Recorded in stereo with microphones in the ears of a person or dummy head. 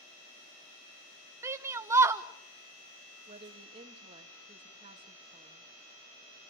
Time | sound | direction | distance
1.4 | a shout | 20° right (ahead or behind) | 1.0 m
3.3 | a woman speaking | 20° right (ahead or behind) | 2.5 m